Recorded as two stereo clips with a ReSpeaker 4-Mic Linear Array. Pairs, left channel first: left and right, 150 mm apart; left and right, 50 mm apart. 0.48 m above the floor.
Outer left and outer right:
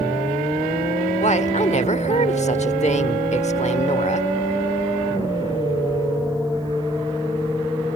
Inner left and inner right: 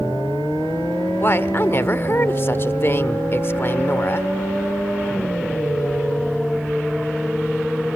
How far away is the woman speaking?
About 1.1 m.